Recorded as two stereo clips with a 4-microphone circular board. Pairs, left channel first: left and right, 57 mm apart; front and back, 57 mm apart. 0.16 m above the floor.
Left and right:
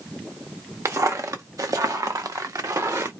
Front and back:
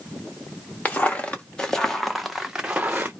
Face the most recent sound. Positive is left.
turn(degrees=-125)